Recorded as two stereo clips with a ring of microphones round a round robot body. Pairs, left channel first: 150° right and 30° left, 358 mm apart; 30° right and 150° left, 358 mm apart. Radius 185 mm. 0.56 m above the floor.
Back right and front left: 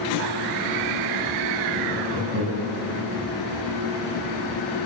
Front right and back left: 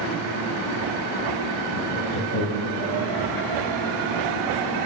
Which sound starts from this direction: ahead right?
Laughter, at 1.7 s.